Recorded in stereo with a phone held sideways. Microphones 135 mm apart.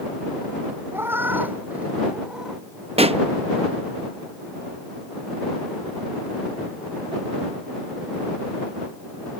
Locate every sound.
0.9 s a cat meowing: 15° right (ahead or behind); by 2.6 s 5° right (ahead or behind)
3.0 s a pop: 50° right (ahead or behind)